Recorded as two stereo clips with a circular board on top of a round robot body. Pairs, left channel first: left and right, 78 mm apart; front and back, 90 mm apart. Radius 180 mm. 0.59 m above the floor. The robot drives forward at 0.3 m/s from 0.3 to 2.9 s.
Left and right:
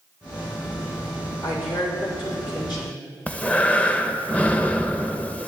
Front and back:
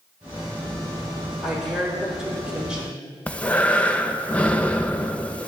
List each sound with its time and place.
1.4 s a woman speaking: 95° left, 3.5 m; by 3.2 s 100° left, 3.5 m
3.3 s breathing: 50° left, 0.9 m